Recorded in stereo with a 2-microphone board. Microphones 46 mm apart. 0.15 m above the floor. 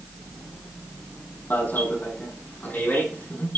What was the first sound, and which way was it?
An alarm, 45° left (ahead or behind).